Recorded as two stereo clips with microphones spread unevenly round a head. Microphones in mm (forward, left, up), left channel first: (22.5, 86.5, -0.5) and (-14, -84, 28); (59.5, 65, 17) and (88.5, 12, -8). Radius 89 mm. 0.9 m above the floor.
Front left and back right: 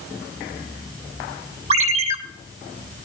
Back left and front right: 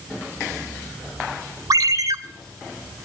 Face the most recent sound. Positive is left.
turn(degrees=-50)